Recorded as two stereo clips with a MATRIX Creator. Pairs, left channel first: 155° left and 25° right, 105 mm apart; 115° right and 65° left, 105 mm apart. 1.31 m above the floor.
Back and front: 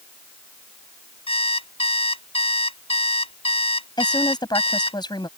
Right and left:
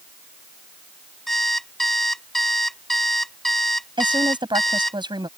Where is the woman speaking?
110° left.